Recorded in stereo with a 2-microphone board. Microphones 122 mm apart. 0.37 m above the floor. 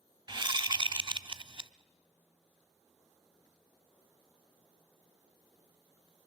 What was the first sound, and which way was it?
A whoosh, 40° right (ahead or behind).